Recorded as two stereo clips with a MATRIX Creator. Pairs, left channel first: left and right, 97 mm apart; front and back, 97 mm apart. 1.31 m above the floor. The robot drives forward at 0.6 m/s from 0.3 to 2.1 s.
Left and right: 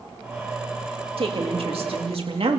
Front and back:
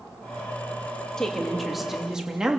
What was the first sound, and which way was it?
A woman speaking, 85° right.